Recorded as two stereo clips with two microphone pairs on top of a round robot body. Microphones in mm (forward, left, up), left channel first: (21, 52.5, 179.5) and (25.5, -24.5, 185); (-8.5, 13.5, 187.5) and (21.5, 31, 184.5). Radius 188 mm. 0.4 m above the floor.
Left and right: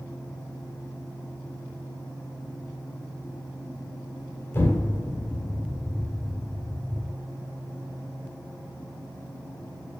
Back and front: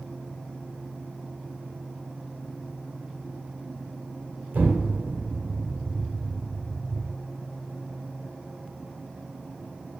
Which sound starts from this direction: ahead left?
An explosion, at 4.5 s.